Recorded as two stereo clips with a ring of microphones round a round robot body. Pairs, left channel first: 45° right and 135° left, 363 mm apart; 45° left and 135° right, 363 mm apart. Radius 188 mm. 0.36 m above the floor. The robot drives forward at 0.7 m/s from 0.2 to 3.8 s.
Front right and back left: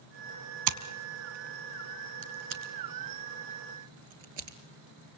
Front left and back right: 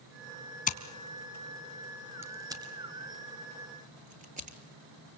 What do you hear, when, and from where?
0.7 s scissors: 115° left, 1.5 m; by 4.6 s 155° left, 3 m